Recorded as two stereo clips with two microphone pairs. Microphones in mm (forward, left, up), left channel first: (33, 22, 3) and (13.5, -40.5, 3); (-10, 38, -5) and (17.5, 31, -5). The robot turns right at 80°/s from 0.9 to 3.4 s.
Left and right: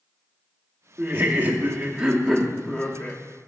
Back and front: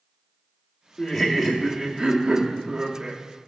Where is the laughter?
120° right, 0.8 m; by 3.2 s 60° left, 0.8 m.